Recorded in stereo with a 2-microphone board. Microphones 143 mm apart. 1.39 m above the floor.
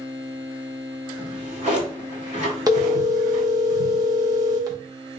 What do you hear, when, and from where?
1.2 s a drawer: 60° right (ahead or behind), 1.8 m
2.7 s a phone ringing: 25° right (ahead or behind), 0.8 m